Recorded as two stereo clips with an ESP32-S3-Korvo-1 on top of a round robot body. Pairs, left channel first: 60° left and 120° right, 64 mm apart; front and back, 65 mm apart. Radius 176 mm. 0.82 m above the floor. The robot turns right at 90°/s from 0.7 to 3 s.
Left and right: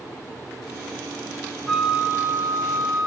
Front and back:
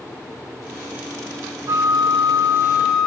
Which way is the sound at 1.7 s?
145° left.